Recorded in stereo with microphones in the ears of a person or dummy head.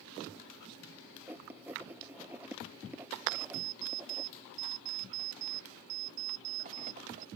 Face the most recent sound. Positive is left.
turn(degrees=-35)  # may be behind; listen again after turning